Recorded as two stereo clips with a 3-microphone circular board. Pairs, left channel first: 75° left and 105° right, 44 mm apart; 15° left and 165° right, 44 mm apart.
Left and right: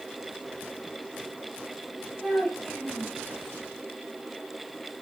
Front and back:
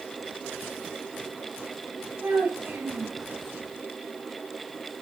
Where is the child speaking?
165° left, 3 m.